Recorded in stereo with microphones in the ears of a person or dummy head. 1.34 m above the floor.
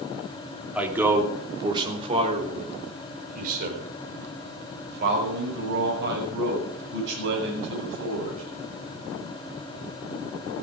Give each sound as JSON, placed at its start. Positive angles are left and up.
{"t": 0.8, "sound": "a man speaking", "side_deg": -15, "distance_m": 3.0}